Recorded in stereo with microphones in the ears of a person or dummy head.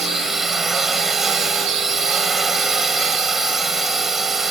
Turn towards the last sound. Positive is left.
turn(degrees=0)  # may be behind; listen again after turning